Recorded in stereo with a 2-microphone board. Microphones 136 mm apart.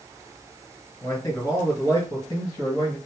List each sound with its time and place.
1.0 s a man speaking: 25° left (ahead or behind), 1.4 m; by 3.0 s 30° left (ahead or behind), 2 m